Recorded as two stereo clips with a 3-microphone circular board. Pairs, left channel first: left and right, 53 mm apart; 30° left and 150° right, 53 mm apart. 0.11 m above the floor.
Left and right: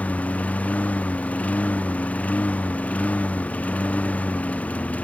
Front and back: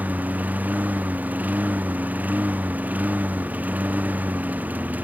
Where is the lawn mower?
150° left.